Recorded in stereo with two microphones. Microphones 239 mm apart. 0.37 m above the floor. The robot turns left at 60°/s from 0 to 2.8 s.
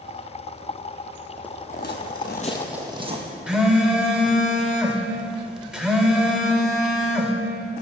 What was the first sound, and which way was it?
Footsteps, 5° left (ahead or behind).